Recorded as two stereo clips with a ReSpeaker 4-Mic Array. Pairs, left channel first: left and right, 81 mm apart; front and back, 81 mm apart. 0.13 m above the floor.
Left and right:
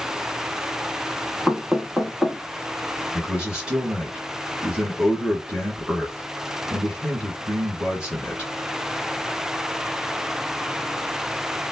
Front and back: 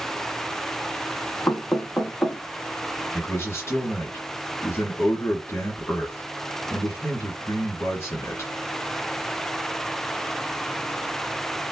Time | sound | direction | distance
1.5 | knocking | 10° right | 0.9 m
3.1 | a man speaking | 25° right | 1.7 m